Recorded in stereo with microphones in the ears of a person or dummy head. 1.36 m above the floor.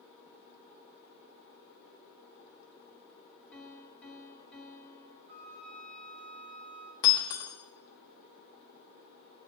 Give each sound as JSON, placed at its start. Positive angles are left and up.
{"t": 3.5, "sound": "a piano", "side_deg": 5, "distance_m": 1.7}
{"t": 5.3, "sound": "a flute", "side_deg": -25, "distance_m": 1.5}
{"t": 7.0, "sound": "breaking glass", "side_deg": 20, "distance_m": 0.8}